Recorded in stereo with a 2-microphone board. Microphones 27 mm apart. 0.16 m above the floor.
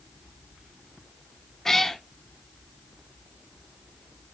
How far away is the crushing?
I don't hear crushing.